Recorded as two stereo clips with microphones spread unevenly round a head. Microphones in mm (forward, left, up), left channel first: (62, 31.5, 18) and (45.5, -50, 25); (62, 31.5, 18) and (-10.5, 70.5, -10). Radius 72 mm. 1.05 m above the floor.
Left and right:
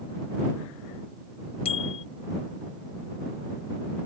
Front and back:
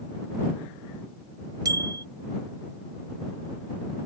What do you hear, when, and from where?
1.6 s a bicycle bell: 110° left